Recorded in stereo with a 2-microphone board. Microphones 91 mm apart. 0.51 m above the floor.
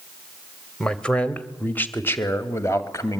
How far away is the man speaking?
About 1.8 m.